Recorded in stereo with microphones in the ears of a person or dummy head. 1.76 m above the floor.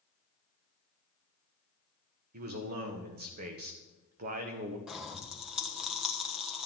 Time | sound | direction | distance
2.3 | a man speaking | 50° right (ahead or behind) | 1.3 m
4.9 | a pop | centre (ahead or behind) | 1.2 m